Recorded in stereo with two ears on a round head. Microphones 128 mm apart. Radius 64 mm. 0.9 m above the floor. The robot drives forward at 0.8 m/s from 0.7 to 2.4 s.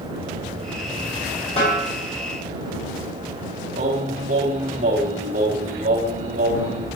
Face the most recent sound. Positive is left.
turn(degrees=-55)  # may be behind; listen again after turning